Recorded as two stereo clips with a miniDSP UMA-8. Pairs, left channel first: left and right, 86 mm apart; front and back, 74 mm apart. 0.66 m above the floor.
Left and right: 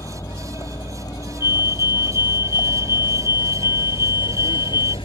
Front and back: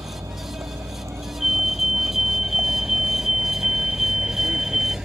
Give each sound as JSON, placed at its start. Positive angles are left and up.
{"t": 0.0, "sound": "a vehicle", "azimuth_deg": 140}
{"t": 1.4, "sound": "a fire alarm", "azimuth_deg": 95}